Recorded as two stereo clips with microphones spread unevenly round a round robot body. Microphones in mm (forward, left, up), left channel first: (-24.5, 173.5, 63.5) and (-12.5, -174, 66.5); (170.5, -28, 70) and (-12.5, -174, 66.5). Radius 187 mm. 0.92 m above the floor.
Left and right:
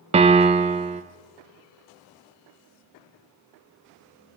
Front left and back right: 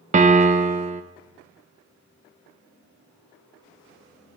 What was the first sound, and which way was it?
A piano, 145° right.